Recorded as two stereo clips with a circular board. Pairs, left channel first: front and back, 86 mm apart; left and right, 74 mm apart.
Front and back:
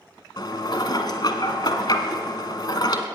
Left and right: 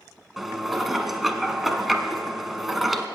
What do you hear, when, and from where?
0.4 s dishes clattering: straight ahead, 1.2 m